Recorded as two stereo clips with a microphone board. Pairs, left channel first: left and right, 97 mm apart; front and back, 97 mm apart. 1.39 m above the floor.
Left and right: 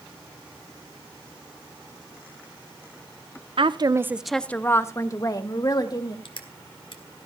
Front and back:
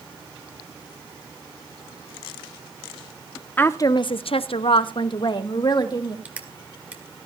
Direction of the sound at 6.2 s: 105° left.